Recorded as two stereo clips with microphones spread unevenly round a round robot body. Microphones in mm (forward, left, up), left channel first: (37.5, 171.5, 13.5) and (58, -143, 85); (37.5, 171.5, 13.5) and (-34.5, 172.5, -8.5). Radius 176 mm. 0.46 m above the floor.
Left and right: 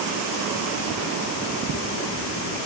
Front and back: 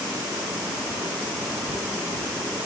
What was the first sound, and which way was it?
Only background noise.